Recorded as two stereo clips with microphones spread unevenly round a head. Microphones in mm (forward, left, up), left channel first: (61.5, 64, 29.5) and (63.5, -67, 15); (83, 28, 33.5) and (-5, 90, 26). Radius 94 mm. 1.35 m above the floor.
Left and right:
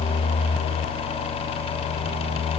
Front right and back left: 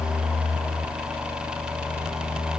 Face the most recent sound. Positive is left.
No sound to turn to.